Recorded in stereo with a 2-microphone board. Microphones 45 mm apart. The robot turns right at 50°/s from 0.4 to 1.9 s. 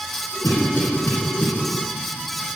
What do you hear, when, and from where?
0.4 s a cough: 60° left (ahead or behind), 2.5 m; by 1.5 s 30° left (ahead or behind), 2.5 m